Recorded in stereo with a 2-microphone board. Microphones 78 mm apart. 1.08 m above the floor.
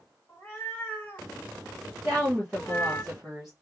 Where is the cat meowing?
20° left (ahead or behind), 1.5 m; by 3.0 s 25° left (ahead or behind), 0.5 m.